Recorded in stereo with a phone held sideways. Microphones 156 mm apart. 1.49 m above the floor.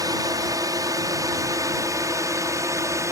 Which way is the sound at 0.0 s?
25° right (ahead or behind).